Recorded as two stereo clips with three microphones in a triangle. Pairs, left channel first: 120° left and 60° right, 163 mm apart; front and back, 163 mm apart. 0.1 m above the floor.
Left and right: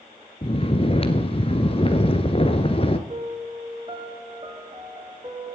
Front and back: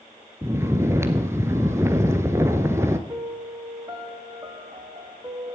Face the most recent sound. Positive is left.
turn(degrees=-115)